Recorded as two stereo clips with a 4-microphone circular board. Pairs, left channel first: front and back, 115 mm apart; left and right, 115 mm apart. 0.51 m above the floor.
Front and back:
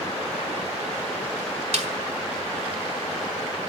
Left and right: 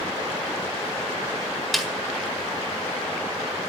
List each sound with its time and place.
1.7 s a snare drum: straight behind, 1.7 m